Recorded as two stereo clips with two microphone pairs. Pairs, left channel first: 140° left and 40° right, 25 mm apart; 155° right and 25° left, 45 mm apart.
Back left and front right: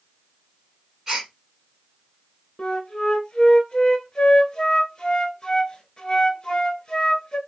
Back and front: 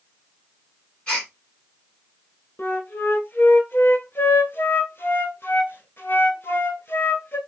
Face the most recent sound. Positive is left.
turn(degrees=-160)